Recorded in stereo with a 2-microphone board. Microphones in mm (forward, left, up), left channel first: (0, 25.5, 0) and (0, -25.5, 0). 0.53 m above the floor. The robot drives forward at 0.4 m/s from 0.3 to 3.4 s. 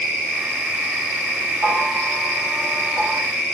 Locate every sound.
1.6 s a bell: 70° right (ahead or behind), 1.7 m; by 3.2 s 65° right (ahead or behind), 1.8 m